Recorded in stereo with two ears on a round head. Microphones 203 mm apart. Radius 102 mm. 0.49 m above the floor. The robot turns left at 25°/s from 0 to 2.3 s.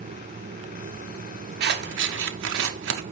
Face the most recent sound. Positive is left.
turn(degrees=-55)  # may be behind; listen again after turning